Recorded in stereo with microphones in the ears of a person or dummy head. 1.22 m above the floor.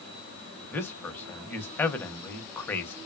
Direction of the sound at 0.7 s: 15° left (ahead or behind).